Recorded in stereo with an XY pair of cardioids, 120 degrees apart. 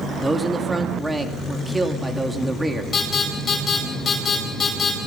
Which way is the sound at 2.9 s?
35° left.